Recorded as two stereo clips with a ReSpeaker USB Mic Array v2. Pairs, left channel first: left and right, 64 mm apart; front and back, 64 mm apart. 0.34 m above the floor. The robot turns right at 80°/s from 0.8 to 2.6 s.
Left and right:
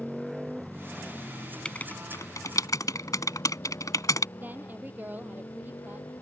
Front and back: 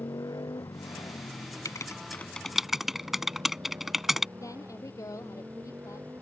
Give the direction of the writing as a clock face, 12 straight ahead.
11 o'clock.